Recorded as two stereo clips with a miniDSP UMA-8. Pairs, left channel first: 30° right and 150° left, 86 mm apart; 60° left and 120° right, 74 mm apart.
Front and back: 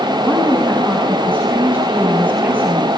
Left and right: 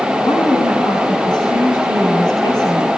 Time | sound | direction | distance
0.2 | a woman speaking | 80° left | 6.5 m